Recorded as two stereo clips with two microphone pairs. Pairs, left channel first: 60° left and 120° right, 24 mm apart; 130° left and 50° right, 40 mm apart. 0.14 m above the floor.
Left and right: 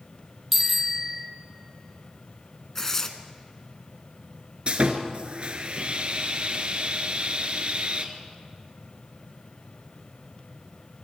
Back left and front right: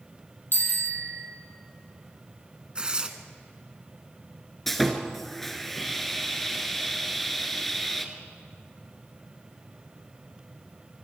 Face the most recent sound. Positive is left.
turn(degrees=-145)